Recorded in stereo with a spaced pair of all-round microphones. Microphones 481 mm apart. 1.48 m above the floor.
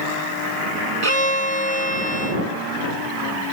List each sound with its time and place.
1.0 s a violin: 90° right